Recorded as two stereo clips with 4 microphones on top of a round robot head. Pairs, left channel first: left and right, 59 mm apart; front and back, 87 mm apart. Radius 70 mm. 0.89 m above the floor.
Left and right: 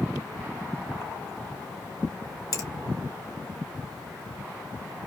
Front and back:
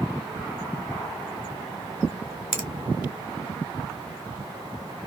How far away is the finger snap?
About 2 m.